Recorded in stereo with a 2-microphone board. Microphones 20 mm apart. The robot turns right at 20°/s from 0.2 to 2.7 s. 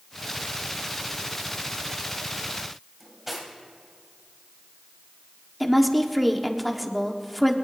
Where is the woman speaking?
Centre (ahead or behind), 1.3 m.